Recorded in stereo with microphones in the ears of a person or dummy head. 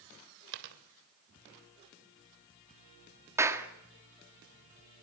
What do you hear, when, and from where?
0.5 s a dropped coin: 65° right (ahead or behind), 2.5 m
3.4 s a clap: 10° right (ahead or behind), 1.4 m